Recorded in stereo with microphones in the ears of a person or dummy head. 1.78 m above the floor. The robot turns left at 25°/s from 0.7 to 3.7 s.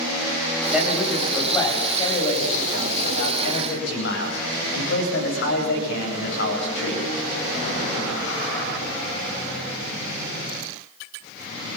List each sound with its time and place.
0.7 s a man speaking: 170° right, 9.5 m; by 7.0 s 115° left, 9.5 m